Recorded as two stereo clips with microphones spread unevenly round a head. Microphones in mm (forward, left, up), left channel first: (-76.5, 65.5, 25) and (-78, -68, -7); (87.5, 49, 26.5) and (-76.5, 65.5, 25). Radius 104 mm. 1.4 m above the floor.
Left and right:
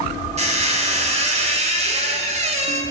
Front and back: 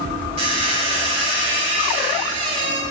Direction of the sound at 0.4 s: 130° right.